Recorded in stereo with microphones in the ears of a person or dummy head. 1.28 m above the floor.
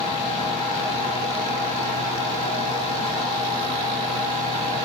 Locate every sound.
0.0 s a fan: 20° right (ahead or behind), 1.2 m